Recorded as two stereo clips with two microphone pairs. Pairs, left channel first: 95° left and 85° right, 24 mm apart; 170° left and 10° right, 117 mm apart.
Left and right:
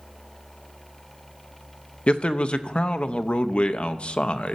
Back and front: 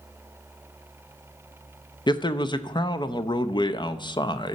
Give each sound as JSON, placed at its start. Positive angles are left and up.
{"t": 2.1, "sound": "a man speaking", "azimuth_deg": 125, "distance_m": 0.6}